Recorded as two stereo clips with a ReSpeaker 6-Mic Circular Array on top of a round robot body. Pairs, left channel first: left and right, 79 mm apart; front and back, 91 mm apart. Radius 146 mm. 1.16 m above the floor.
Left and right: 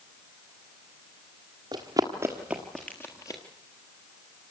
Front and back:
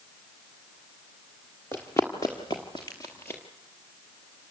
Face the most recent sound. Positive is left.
turn(degrees=65)